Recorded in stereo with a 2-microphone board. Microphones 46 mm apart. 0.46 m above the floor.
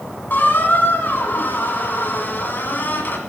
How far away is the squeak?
About 1.6 m.